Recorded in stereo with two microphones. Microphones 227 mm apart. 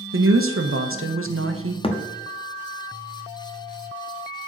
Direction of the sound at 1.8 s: 25° left (ahead or behind).